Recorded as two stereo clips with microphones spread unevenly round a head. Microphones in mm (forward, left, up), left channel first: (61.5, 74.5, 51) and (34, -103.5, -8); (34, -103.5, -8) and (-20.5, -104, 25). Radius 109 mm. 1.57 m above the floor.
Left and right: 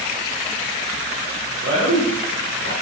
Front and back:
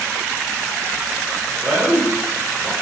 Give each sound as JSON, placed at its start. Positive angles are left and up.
{"t": 1.6, "sound": "a man speaking", "azimuth_deg": -120, "distance_m": 1.7}